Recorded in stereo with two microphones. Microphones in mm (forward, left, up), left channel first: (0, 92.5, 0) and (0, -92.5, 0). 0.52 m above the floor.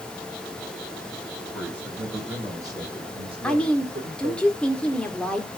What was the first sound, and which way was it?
A man speaking, 5° right (ahead or behind).